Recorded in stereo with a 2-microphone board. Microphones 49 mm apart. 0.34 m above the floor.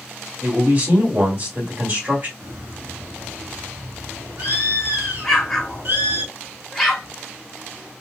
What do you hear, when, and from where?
0.4 s a man speaking: 40° right (ahead or behind), 1.9 m
2.4 s a bird: 50° right (ahead or behind), 2 m
5.2 s an explosion: 5° left (ahead or behind), 1.5 m